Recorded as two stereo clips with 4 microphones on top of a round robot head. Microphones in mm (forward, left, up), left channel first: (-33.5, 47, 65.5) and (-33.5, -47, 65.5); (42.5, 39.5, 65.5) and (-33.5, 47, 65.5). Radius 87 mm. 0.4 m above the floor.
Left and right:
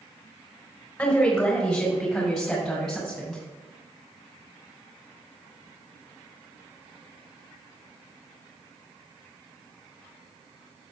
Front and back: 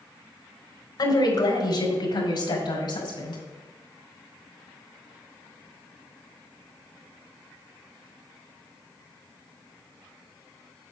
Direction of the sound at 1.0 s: 5° left.